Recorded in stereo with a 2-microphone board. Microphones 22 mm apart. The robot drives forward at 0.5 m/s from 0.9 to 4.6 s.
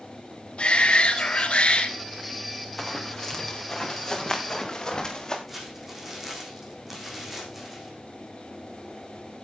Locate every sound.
0.6 s a shout: 50° left (ahead or behind), 3 m; by 1.9 s 55° left (ahead or behind), 3 m
2.8 s running footsteps: 10° left (ahead or behind), 4 m; by 5.4 s 25° left (ahead or behind), 5 m
5.5 s crumpling: 15° right (ahead or behind), 6 m